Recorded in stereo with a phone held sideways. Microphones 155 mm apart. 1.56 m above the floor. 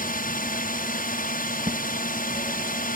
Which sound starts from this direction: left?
A drone, at 0.0 s.